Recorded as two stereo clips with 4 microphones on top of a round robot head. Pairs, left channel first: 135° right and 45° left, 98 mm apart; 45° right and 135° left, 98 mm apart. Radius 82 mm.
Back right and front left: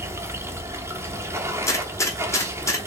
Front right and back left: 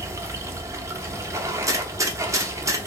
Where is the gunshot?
175° left, 1.2 m.